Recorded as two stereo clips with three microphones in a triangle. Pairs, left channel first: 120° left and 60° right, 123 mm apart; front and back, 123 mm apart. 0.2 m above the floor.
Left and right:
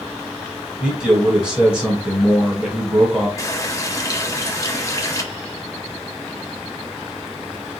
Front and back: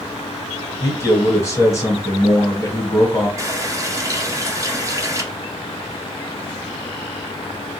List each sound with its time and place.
0.8 s a man speaking: 10° left, 1.2 m
3.4 s a running tap: 150° left, 0.7 m